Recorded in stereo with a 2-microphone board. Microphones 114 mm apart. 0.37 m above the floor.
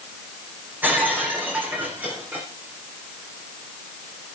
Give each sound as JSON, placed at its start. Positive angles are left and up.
{"t": 0.8, "sound": "breaking glass", "side_deg": -15, "distance_m": 7.5}